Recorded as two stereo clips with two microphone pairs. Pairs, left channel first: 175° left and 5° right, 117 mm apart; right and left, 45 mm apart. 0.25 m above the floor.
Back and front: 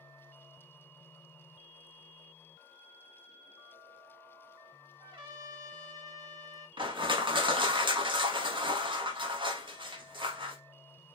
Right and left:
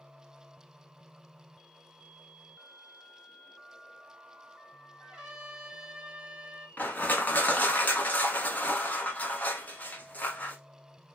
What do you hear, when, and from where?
5.0 s a trumpet: 20° left, 1.3 m
6.8 s crushing: 45° right, 0.9 m